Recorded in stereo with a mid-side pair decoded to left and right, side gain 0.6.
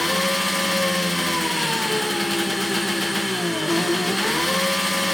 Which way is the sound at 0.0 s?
5° left.